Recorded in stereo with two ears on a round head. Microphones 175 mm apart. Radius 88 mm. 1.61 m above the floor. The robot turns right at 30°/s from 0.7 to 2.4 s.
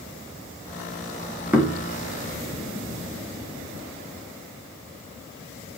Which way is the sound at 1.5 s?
10° right (ahead or behind).